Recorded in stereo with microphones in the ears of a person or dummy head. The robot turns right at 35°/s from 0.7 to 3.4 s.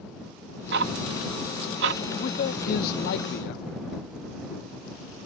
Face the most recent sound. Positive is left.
turn(degrees=90)